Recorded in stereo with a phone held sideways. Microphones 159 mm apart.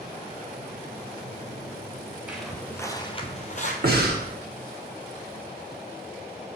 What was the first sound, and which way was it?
Footsteps, 10° right (ahead or behind).